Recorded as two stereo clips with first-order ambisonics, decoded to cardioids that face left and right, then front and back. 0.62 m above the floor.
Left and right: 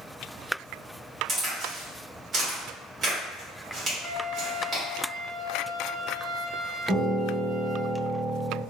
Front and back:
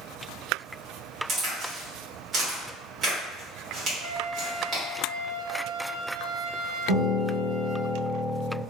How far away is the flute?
About 1.8 m.